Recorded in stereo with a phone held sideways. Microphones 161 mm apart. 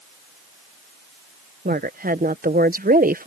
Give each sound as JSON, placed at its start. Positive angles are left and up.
{"t": 1.6, "sound": "a woman speaking", "side_deg": -60}